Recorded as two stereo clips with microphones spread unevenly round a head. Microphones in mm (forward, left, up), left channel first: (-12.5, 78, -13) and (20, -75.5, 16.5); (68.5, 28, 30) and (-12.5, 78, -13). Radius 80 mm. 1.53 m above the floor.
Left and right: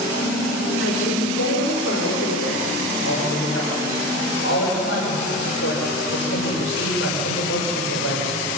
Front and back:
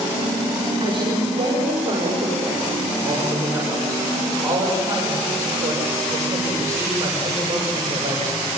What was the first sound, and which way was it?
A woman speaking, 115° left.